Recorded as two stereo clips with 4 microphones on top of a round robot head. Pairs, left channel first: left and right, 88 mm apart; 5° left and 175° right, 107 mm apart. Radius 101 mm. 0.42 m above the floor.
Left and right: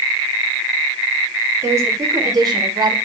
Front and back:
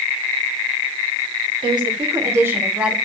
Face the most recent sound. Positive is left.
turn(degrees=-95)